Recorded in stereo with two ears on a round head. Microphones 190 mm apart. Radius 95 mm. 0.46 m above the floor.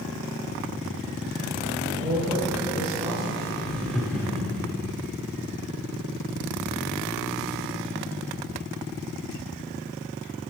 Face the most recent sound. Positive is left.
turn(degrees=5)  # may be behind; listen again after turning